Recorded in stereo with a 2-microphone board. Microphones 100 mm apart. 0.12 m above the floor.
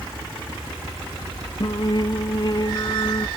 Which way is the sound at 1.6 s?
45° left (ahead or behind).